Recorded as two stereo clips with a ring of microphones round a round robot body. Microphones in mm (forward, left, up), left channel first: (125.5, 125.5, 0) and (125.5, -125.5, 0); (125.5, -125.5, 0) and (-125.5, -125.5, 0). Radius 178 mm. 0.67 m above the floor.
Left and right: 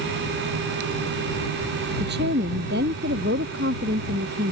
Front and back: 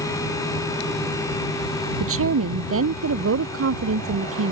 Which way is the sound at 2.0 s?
155° right.